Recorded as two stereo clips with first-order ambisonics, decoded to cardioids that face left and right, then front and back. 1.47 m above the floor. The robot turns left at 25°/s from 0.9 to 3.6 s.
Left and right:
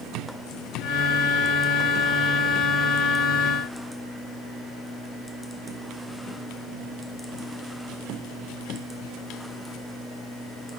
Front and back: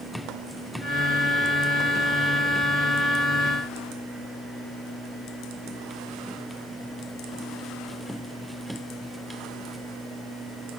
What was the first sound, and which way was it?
Only background noise.